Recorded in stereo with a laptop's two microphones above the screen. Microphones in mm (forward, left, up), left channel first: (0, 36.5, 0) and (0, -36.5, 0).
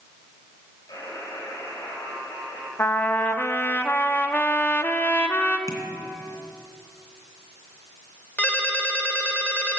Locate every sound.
0.9 s a buzzer: 85° left, 6.5 m
2.8 s a trumpet: 30° left (ahead or behind), 1.1 m
5.7 s tapping: 50° left (ahead or behind), 3 m
8.4 s a ringtone: 20° left (ahead or behind), 2 m